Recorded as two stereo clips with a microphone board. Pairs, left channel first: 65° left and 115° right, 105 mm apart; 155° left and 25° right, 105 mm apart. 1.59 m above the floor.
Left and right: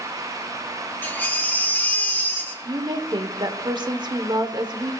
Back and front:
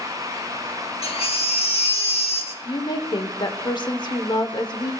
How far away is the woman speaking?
About 1.0 m.